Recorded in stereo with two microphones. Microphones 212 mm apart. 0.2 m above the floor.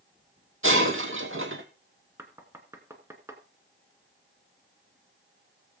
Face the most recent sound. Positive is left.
turn(degrees=-10)  # may be behind; listen again after turning